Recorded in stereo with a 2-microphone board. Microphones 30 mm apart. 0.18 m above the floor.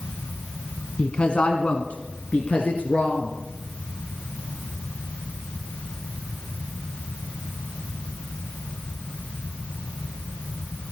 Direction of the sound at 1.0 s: 40° left (ahead or behind).